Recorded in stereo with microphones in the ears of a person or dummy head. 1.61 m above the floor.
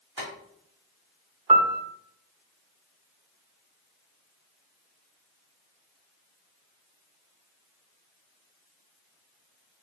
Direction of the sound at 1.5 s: 35° right (ahead or behind).